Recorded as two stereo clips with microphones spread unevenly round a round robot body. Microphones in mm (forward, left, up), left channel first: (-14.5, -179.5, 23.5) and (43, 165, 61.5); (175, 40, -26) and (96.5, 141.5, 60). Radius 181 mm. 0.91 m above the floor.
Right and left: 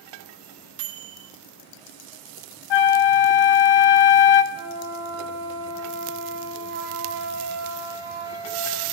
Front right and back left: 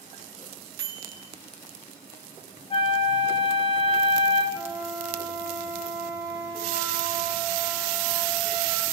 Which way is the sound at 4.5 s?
80° left.